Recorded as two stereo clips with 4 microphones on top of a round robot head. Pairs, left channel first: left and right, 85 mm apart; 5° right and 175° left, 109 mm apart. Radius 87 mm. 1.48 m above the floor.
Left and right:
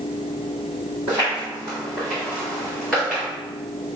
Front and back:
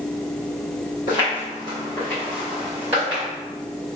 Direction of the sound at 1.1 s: 15° left.